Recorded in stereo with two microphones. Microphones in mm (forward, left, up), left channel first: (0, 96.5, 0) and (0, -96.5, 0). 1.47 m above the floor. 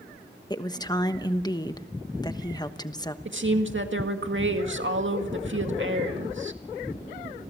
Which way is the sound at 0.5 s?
20° left (ahead or behind).